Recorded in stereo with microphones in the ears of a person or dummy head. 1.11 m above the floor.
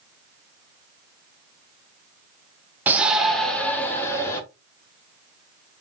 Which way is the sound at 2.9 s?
10° right (ahead or behind).